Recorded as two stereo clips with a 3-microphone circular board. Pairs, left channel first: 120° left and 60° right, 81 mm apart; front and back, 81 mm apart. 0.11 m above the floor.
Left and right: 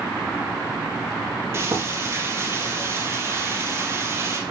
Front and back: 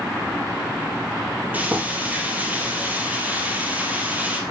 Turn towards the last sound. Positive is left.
turn(degrees=-115)